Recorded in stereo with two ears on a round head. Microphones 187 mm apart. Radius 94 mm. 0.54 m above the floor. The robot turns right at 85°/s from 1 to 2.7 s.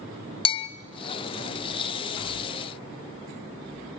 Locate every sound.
0.5 s a bell: 25° left (ahead or behind), 0.5 m